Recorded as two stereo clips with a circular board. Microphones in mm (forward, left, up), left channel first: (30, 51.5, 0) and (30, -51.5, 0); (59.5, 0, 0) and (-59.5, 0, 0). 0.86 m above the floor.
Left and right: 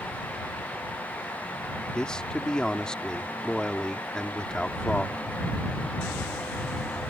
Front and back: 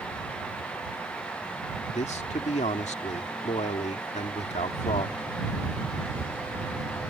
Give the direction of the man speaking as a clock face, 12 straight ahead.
12 o'clock.